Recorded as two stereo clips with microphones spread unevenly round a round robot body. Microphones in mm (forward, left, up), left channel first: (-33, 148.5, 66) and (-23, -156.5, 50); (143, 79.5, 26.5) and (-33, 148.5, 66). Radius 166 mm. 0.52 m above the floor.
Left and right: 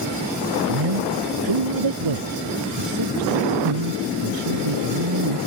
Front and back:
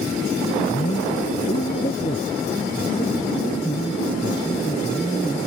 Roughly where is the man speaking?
Right.